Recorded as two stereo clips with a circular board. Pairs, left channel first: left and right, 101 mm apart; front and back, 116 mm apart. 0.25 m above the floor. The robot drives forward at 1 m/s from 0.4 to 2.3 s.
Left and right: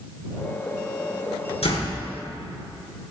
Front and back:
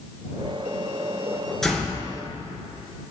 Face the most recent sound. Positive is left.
turn(degrees=100)